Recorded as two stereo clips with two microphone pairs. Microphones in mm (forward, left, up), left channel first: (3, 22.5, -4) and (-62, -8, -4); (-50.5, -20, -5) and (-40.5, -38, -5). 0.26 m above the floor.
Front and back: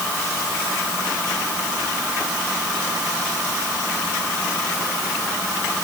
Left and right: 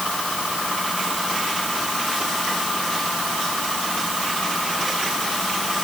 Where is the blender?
I don't hear a blender.